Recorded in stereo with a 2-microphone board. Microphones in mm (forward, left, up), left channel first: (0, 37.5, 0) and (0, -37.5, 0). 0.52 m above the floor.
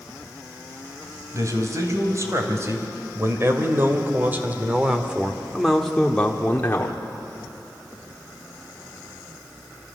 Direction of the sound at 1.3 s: 45° right (ahead or behind).